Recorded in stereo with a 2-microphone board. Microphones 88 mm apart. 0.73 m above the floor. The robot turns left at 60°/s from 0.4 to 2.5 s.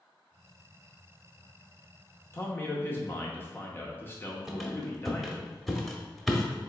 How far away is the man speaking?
About 0.8 m.